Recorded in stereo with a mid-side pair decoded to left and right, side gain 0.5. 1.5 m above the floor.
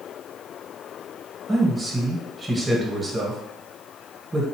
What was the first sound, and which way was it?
A man speaking, 20° right.